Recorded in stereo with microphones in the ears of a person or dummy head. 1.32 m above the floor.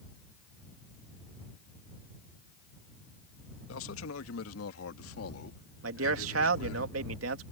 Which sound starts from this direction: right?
A man speaking, at 5.8 s.